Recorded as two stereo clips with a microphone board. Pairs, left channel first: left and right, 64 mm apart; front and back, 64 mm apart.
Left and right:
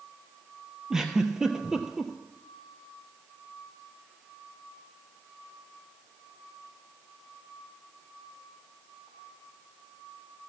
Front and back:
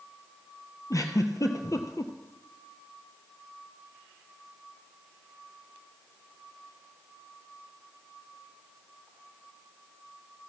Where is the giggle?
10° right, 1.2 m.